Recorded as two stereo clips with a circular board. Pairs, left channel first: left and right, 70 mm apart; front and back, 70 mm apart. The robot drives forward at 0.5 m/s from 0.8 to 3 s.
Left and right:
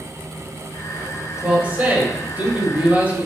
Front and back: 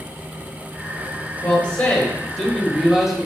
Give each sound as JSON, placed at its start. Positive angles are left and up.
{"t": 1.4, "sound": "a man speaking", "azimuth_deg": -45, "distance_m": 1.7}